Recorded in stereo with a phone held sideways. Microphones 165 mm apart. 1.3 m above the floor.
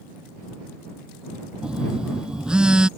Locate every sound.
1.6 s a phone buzzing: 5° right (ahead or behind)